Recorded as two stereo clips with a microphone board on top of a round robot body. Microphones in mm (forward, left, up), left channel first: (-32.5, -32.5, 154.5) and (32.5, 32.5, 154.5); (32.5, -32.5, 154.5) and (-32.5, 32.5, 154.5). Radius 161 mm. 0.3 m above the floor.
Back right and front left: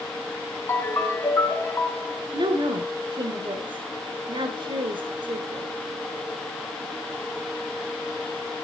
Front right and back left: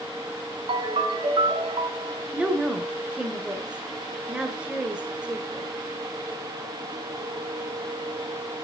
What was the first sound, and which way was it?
A ringtone, 160° left.